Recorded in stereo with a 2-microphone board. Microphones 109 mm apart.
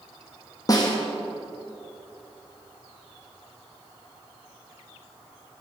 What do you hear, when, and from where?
0.7 s a snare drum: 35° left (ahead or behind), 2 m